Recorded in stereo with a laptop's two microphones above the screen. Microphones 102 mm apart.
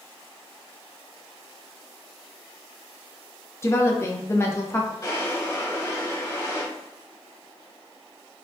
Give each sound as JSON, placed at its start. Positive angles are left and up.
{"t": 3.6, "sound": "a woman speaking", "side_deg": 25, "distance_m": 0.6}
{"t": 5.0, "sound": "a drawer", "side_deg": 35, "distance_m": 1.3}